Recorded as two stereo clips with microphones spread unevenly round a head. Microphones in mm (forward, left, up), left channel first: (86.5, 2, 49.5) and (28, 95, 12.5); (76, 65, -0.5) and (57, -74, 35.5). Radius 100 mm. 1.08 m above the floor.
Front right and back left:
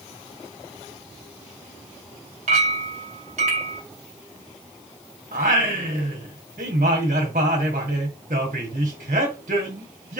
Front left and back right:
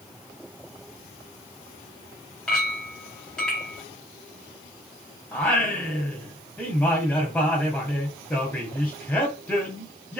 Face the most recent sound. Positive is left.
turn(degrees=175)